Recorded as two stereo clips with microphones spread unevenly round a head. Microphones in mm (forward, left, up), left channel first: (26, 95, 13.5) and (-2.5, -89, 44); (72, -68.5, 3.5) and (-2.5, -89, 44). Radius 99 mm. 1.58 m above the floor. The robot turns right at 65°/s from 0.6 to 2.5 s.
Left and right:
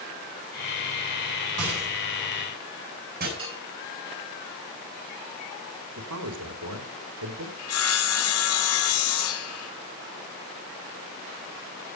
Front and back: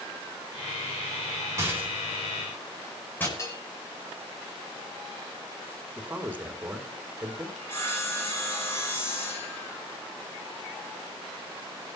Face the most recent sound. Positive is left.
turn(degrees=95)